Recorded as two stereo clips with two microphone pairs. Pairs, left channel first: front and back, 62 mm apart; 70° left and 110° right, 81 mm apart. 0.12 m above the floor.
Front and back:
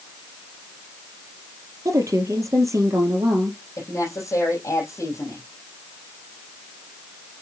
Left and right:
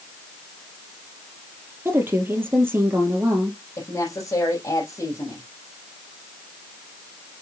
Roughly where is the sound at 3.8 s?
Ahead left.